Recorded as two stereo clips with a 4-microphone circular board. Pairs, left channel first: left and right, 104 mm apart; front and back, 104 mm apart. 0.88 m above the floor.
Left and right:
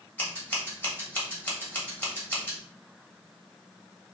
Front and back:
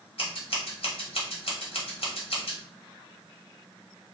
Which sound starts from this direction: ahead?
Scissors, at 0.2 s.